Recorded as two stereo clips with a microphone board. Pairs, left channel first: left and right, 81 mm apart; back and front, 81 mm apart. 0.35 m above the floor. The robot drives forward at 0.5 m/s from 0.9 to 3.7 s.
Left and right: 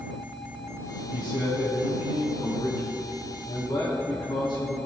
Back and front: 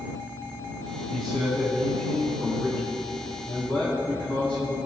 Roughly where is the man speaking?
Left.